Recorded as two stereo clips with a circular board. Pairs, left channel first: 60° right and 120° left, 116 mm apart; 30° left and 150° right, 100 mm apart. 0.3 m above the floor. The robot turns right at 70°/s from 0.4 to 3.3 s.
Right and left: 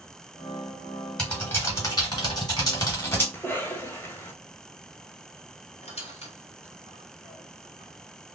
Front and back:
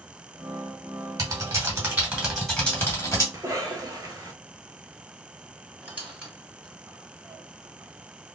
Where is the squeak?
75° right, 1.6 m.